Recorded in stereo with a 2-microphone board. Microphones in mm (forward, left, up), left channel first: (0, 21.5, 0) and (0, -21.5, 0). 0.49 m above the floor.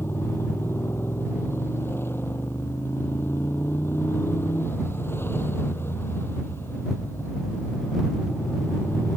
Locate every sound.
0.0 s a motorcycle: 60° left (ahead or behind)